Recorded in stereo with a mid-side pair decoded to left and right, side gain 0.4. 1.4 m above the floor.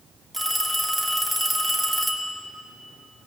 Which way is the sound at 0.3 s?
5° right.